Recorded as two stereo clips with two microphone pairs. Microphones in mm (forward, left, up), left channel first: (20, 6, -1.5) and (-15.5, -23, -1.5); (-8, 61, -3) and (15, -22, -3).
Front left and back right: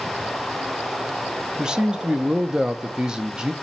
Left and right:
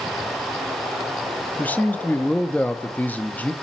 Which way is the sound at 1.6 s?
155° left.